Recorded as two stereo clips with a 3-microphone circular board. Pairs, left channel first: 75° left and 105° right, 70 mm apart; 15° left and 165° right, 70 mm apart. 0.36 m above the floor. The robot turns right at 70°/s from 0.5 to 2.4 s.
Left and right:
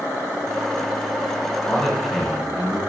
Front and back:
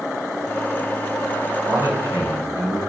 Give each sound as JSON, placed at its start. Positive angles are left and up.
{"t": 1.7, "sound": "a man speaking", "azimuth_deg": 140, "distance_m": 2.0}